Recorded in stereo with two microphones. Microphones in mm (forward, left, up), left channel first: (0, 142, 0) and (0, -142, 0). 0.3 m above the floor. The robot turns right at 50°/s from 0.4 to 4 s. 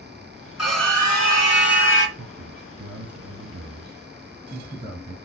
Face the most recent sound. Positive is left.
turn(degrees=-25)